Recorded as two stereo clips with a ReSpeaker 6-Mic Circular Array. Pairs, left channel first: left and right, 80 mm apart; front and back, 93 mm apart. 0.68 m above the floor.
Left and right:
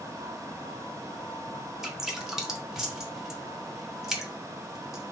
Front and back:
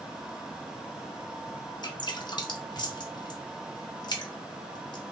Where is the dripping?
10° right, 0.7 m.